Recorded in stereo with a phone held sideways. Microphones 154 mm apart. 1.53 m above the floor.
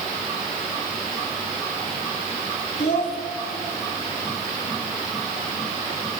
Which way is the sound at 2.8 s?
80° left.